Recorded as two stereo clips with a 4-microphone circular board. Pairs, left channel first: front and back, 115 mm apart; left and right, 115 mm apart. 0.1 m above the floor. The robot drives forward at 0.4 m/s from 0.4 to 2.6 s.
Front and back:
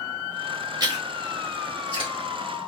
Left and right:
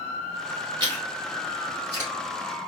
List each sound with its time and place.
0.8 s chewing: 135° right, 2.5 m; by 2.1 s 145° right, 2.5 m